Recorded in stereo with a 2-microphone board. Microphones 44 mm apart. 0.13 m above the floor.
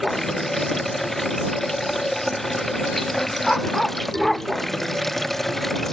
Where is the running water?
5° left (ahead or behind).